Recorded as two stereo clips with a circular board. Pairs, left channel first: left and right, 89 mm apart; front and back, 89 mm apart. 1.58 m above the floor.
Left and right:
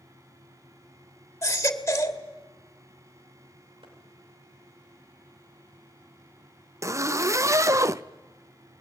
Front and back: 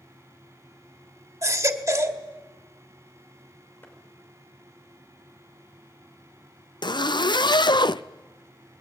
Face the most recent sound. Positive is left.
turn(degrees=-35)